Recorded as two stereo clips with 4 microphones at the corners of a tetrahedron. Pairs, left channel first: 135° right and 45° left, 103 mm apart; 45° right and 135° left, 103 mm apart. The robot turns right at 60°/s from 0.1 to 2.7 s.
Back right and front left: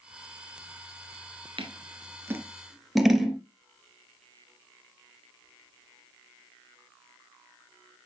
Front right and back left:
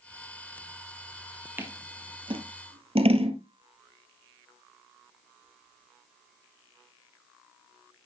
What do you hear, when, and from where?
1.6 s scissors: 65° left, 1.7 m; by 3.4 s 135° left, 1.7 m